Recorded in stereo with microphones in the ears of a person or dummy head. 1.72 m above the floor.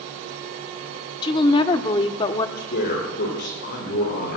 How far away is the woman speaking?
About 1.0 m.